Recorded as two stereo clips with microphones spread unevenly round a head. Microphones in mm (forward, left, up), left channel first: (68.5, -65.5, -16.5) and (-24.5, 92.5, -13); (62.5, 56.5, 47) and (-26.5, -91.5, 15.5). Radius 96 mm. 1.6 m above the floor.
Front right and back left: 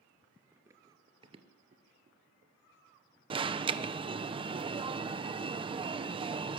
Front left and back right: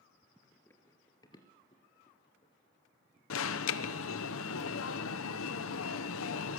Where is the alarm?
55° left, 1.0 m.